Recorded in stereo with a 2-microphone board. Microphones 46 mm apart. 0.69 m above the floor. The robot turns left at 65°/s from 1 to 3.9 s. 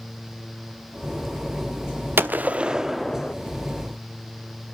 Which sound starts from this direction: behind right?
A gunshot, at 2.2 s.